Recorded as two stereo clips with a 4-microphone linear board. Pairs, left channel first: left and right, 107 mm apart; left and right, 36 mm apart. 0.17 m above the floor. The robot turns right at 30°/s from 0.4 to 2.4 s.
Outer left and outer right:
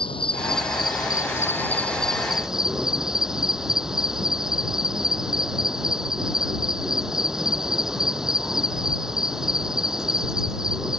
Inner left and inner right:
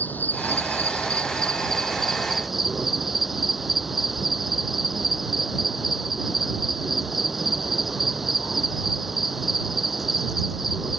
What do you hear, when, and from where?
0.0 s an insect: 125° left; by 11.0 s 175° right